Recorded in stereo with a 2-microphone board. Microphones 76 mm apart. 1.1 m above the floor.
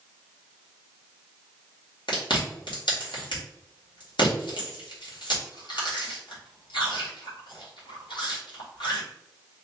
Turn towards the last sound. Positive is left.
turn(degrees=80)